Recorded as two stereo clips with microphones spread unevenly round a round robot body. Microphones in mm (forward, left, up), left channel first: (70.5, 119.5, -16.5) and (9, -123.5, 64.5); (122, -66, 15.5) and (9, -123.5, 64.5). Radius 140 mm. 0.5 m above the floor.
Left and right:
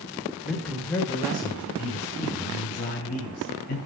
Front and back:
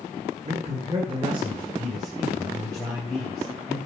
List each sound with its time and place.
0.5 s a man speaking: 155° left, 1.8 m; by 3.8 s 120° left, 4 m